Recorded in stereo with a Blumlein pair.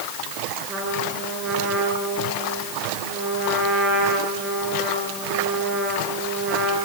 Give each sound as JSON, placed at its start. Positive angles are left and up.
{"t": 0.7, "sound": "a trumpet", "azimuth_deg": -25, "distance_m": 7.5}